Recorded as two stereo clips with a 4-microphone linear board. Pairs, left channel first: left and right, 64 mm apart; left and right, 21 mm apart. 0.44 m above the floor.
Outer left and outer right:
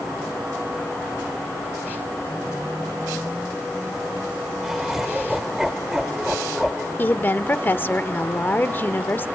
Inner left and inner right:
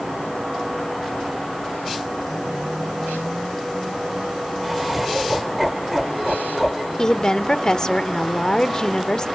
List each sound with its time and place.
4.6 s laughter: 5° right (ahead or behind), 1.2 m
7.0 s a woman speaking: 30° left (ahead or behind), 0.9 m